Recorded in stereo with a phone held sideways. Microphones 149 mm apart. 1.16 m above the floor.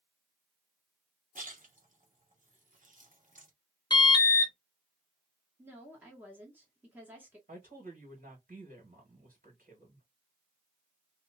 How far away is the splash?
About 1.1 m.